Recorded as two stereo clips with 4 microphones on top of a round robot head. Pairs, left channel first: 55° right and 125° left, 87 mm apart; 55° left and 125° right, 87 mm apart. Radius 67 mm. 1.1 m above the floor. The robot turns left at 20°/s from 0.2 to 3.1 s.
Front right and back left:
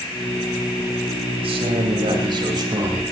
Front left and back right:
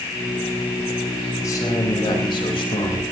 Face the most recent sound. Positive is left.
turn(degrees=75)